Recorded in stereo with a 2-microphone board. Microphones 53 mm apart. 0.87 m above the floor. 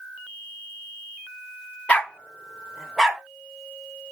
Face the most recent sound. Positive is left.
turn(degrees=-10)  # may be behind; listen again after turning